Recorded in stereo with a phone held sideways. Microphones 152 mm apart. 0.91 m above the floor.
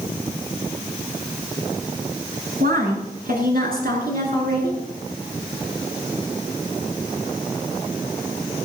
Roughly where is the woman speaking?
Right.